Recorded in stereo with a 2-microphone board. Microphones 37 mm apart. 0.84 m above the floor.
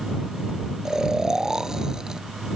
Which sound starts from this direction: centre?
Snoring, at 0.8 s.